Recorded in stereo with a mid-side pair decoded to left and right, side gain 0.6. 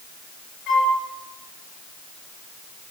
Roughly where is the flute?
Ahead left.